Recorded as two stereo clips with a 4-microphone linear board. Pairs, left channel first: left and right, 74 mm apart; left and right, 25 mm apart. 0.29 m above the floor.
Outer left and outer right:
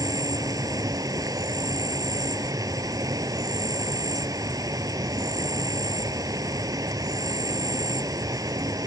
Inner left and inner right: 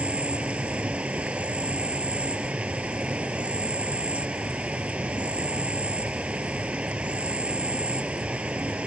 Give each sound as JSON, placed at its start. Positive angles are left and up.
{"t": 0.0, "sound": "an insect", "side_deg": -55}